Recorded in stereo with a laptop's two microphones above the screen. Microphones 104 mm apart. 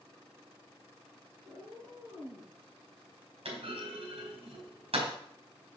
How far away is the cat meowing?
About 5 m.